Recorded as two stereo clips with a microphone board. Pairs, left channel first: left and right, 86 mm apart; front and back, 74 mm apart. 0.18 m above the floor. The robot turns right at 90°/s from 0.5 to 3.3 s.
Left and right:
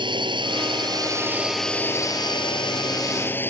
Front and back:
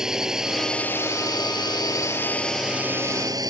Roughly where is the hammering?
No hammering in this recording.